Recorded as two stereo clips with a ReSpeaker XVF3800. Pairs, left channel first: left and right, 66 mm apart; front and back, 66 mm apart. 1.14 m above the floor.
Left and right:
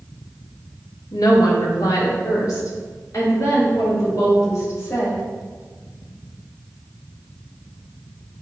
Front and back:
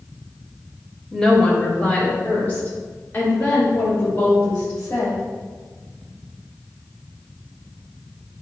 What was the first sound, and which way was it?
A woman speaking, 80° left.